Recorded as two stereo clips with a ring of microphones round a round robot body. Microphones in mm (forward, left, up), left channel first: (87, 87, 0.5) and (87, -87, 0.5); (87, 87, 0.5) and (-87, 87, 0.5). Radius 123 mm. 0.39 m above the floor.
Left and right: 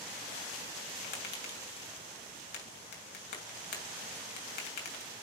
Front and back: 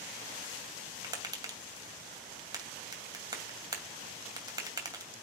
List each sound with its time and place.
1.0 s tapping: 115° left, 2.5 m